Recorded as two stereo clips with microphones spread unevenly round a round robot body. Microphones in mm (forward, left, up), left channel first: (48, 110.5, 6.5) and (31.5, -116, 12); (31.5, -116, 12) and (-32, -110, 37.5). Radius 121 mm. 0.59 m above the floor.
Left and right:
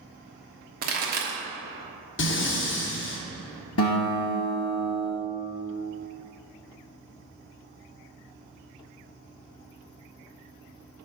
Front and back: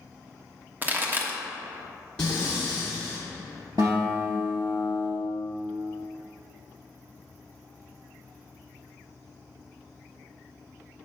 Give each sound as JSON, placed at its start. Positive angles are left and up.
{"t": 0.8, "sound": "a pop", "azimuth_deg": -115, "distance_m": 1.2}
{"t": 2.2, "sound": "breathing", "azimuth_deg": 65, "distance_m": 0.9}
{"t": 3.8, "sound": "a guitar", "azimuth_deg": 120, "distance_m": 1.8}